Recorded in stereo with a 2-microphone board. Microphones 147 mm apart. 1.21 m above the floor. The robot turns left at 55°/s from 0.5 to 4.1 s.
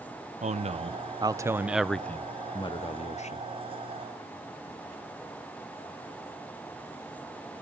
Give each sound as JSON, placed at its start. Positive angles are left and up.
{"t": 0.4, "sound": "a man speaking", "azimuth_deg": -105, "distance_m": 0.6}